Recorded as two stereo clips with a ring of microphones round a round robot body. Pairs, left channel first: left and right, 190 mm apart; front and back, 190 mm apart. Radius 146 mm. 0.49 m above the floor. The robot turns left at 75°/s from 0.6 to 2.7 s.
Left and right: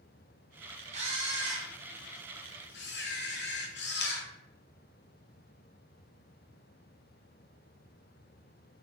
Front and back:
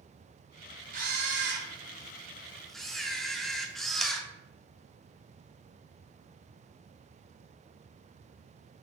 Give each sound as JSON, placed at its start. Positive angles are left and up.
{"t": 0.9, "sound": "a camera shutter", "azimuth_deg": -140, "distance_m": 0.5}